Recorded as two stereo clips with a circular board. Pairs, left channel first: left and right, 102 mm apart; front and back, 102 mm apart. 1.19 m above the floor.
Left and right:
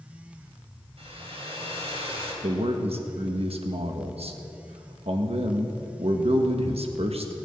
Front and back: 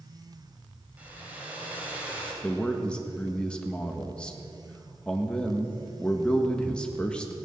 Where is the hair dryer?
105° right, 3 m.